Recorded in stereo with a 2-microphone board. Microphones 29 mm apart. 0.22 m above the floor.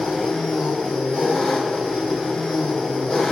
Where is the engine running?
35° left (ahead or behind), 1.6 m.